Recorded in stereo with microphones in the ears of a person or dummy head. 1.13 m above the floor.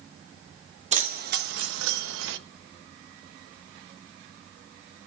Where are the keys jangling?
35° right (ahead or behind), 1.0 m; by 2.4 s 70° right (ahead or behind), 0.9 m.